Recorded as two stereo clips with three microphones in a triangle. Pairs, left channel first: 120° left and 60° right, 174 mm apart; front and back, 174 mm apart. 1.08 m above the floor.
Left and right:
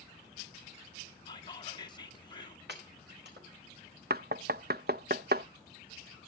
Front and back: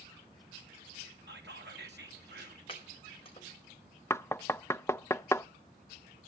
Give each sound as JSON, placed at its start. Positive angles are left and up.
{"t": 1.3, "sound": "whispering", "azimuth_deg": 180, "distance_m": 2.5}
{"t": 2.7, "sound": "chopping", "azimuth_deg": -60, "distance_m": 5.0}
{"t": 4.1, "sound": "knocking", "azimuth_deg": -75, "distance_m": 0.6}